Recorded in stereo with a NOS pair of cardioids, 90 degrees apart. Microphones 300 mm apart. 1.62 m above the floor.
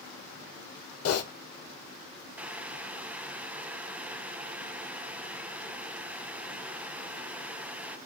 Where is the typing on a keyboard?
55° left, 1.4 m.